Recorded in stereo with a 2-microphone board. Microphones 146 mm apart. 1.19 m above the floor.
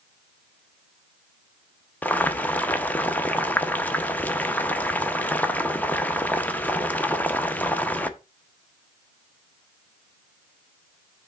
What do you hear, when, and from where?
2.0 s boiling: 10° left (ahead or behind), 0.7 m